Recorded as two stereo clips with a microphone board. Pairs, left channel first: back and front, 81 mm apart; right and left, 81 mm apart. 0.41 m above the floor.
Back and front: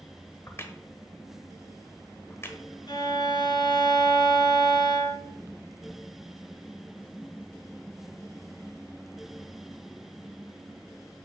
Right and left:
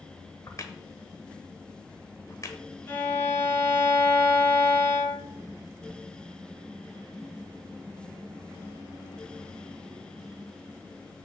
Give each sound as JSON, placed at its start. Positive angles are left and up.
{"t": 0.5, "sound": "a crack", "azimuth_deg": -130, "distance_m": 1.0}
{"t": 2.9, "sound": "a violin", "azimuth_deg": -150, "distance_m": 1.9}